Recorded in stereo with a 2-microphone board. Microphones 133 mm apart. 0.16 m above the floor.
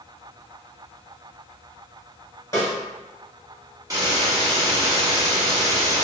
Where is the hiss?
25° right (ahead or behind), 0.8 m.